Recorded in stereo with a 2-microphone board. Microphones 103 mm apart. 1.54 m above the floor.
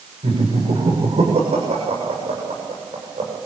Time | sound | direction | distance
0.2 | laughter | 80° right | 7.5 m